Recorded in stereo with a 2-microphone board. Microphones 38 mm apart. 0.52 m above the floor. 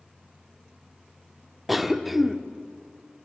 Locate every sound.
1.7 s a cough: 5° right (ahead or behind), 1.0 m